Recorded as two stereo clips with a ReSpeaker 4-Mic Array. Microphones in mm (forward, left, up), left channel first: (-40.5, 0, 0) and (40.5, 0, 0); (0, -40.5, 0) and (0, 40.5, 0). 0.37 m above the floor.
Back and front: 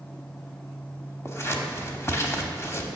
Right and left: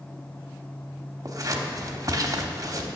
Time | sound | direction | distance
1.2 | scissors | 130° left | 1.0 m